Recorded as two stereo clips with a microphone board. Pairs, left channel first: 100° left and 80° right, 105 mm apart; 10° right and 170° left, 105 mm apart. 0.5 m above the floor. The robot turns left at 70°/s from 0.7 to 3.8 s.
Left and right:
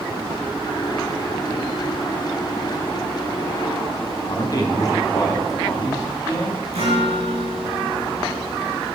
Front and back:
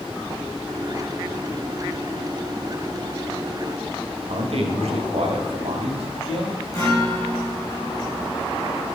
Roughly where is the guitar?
Right.